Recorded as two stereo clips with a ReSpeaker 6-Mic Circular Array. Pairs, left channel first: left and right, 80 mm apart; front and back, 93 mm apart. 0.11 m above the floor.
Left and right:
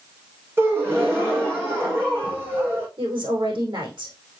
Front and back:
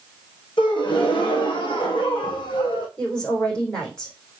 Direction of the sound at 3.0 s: 80° right.